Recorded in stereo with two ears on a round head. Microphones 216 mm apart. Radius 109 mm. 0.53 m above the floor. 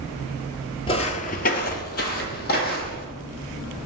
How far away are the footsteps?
About 0.5 m.